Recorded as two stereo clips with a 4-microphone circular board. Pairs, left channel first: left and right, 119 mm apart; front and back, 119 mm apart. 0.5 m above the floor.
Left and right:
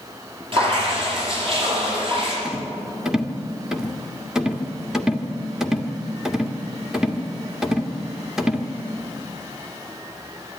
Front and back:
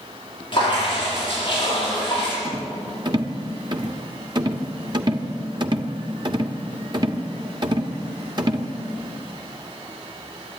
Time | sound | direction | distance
0.5 | dripping | 50° right | 9.5 m
2.5 | a rattle | 170° right | 1.5 m